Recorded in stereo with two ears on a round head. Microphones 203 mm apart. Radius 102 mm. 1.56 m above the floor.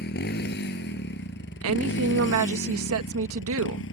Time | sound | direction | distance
0.0 | a motorcycle | 45° left (ahead or behind) | ?
1.6 | a woman speaking | 70° right (ahead or behind) | ?